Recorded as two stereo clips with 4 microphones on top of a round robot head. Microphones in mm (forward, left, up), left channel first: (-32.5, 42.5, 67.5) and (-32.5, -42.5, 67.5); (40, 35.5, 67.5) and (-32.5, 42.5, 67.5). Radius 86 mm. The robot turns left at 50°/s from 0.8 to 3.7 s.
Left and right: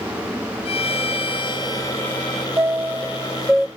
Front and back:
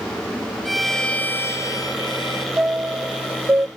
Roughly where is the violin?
Left.